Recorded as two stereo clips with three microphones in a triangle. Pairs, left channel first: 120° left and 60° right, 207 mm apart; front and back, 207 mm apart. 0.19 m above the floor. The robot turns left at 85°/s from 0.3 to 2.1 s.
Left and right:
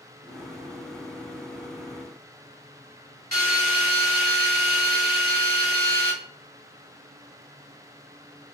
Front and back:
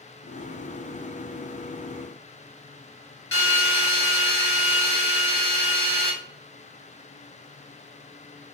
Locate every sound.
3.3 s a drill: 25° right, 2.5 m